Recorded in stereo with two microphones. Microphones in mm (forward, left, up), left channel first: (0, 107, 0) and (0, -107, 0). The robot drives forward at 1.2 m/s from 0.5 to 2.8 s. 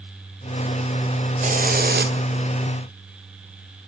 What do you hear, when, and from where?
1.4 s a hiss: 35° right (ahead or behind), 2.5 m; by 2.1 s 55° right (ahead or behind), 1.7 m